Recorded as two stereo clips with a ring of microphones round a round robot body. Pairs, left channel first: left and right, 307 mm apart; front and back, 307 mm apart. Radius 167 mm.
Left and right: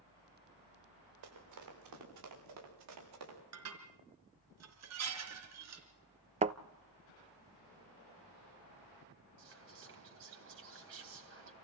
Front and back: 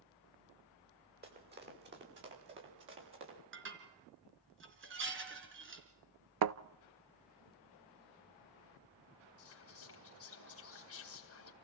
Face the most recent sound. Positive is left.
turn(degrees=-40)